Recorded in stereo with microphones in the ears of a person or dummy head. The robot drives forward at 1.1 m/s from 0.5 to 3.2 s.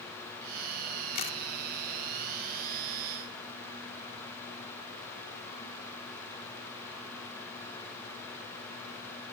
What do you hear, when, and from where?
1.1 s a camera shutter: 50° left (ahead or behind); by 1.4 s 45° left (ahead or behind)